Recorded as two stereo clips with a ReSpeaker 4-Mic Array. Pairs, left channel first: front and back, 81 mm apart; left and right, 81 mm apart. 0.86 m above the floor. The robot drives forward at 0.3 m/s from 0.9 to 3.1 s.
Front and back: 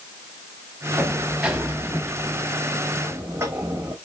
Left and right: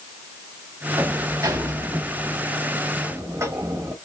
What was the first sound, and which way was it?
A sliding door, 95° right.